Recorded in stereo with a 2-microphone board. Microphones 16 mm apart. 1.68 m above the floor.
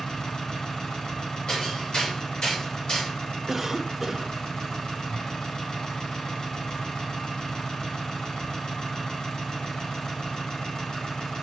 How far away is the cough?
About 1.0 m.